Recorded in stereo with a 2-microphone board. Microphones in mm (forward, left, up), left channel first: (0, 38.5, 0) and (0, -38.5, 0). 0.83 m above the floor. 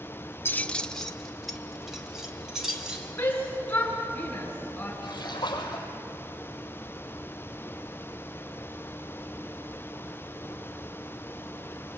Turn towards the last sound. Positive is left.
turn(degrees=75)  # may be behind; listen again after turning